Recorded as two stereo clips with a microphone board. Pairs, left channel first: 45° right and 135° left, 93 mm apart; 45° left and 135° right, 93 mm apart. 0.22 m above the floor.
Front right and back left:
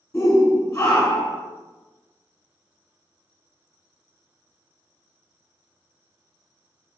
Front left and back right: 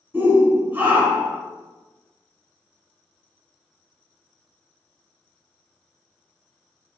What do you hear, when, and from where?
0.1 s a shout: 90° right, 1.6 m